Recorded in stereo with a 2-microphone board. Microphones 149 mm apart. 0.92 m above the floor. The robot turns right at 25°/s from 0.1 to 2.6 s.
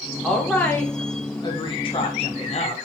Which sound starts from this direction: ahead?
A woman speaking, at 0.2 s.